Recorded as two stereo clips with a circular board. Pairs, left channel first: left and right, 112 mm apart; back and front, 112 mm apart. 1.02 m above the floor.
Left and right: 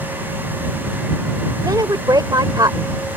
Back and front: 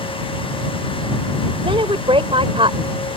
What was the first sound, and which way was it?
A woman speaking, 35° right.